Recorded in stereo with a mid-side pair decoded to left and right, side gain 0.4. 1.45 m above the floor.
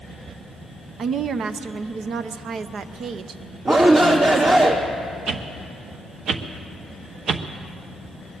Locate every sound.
1.0 s a woman speaking: 65° right, 0.7 m
3.6 s a shout: 55° right, 2.5 m
5.3 s a whoosh: 65° right, 0.9 m